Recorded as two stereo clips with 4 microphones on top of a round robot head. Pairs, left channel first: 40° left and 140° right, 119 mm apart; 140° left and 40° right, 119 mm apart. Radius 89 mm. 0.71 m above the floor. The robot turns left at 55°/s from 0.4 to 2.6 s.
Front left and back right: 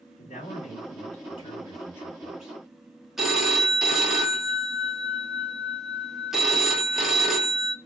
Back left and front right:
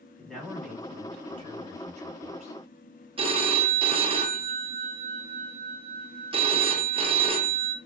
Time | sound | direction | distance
0.2 | a man speaking | 55° left | 1.3 m
3.2 | a phone ringing | 55° right | 0.7 m